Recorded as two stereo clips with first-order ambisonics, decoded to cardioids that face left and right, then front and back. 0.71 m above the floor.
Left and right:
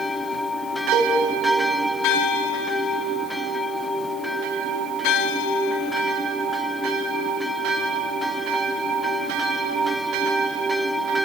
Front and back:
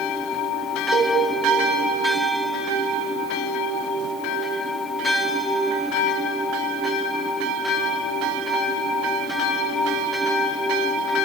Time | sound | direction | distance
0.9 | a cowbell | 135° right | 5.5 m